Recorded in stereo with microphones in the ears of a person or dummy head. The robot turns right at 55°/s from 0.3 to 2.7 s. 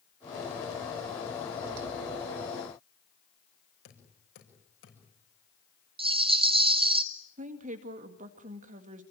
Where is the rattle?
25° right (ahead or behind), 0.8 m.